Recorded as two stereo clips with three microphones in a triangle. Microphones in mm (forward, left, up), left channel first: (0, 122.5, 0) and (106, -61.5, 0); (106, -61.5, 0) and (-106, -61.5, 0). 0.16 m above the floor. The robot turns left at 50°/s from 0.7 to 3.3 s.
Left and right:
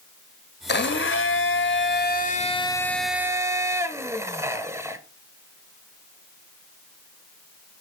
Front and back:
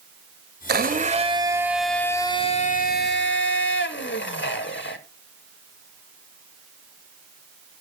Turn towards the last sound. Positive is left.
turn(degrees=15)